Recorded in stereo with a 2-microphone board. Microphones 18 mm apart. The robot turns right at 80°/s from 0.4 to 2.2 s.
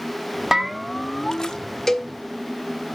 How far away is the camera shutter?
I don't hear a camera shutter.